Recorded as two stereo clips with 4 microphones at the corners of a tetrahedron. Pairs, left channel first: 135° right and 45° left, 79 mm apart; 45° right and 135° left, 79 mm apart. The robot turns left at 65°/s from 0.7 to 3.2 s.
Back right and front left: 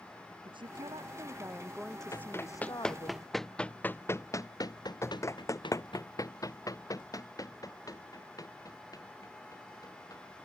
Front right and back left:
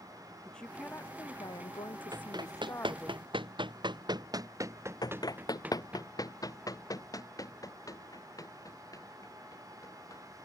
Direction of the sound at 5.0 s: 80° right.